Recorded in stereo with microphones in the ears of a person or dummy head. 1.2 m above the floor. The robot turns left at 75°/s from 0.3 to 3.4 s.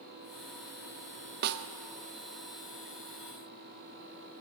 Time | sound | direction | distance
1.4 | a snare drum | 55° right (ahead or behind) | 0.6 m